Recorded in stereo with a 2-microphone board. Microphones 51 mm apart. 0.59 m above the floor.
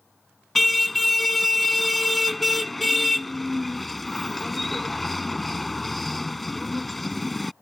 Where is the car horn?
5° left (ahead or behind).